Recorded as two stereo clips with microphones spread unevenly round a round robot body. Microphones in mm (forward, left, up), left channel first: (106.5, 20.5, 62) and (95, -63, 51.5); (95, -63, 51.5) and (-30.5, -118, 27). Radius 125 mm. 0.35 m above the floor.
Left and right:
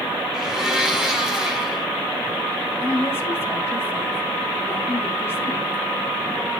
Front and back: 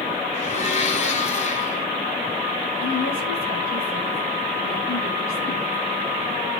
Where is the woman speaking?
20° left, 4 m.